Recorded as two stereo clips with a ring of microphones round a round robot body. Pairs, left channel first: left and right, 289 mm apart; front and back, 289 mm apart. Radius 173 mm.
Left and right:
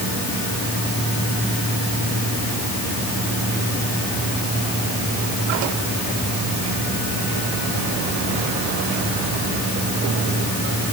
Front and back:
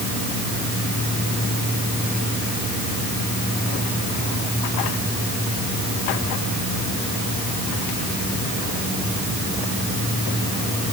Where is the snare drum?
I don't hear a snare drum.